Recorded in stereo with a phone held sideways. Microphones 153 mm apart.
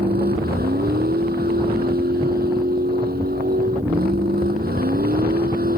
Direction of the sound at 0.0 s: 90° right.